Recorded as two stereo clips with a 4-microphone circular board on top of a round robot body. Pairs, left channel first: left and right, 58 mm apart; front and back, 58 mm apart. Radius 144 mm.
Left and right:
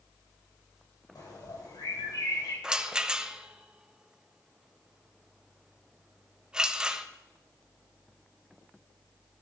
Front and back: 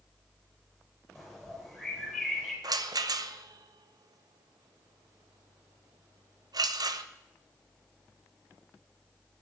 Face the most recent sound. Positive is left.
turn(degrees=-170)